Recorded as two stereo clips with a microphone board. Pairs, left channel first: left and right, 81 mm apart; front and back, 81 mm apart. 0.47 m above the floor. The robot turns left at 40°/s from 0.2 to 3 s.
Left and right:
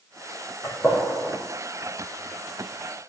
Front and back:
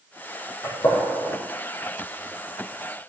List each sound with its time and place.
0.6 s a gunshot: 30° left, 4.5 m; by 1.4 s straight ahead, 4.5 m